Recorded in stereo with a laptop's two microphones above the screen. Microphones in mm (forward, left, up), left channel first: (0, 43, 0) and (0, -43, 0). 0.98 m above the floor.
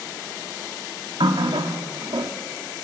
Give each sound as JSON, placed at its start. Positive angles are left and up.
{"t": 1.2, "sound": "a running tap", "side_deg": -90, "distance_m": 1.3}